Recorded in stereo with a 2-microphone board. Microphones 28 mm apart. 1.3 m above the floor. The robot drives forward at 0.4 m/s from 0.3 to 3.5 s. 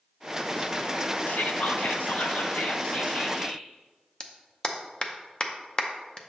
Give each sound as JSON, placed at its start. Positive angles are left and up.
{"t": 1.3, "sound": "whispering", "side_deg": 70, "distance_m": 0.7}
{"t": 4.2, "sound": "a clap", "side_deg": 30, "distance_m": 0.6}